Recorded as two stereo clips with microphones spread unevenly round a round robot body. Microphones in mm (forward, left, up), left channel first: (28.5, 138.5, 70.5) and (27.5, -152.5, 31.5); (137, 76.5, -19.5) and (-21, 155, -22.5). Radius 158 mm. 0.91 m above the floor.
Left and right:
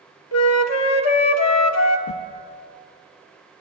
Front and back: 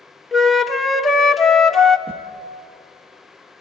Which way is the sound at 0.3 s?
65° left.